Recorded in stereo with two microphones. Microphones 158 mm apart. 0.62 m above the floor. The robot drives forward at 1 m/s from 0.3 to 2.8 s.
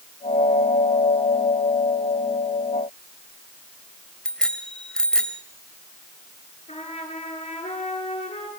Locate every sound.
4.2 s a bicycle bell: 5° left (ahead or behind), 2 m
6.7 s a trumpet: 40° left (ahead or behind), 9.5 m